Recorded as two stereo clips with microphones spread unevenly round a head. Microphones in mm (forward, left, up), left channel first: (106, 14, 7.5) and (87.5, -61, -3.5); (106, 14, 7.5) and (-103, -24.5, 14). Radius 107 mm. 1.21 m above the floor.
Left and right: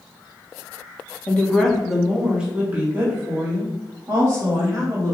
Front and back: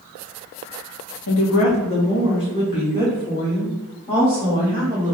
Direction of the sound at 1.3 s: 5° left.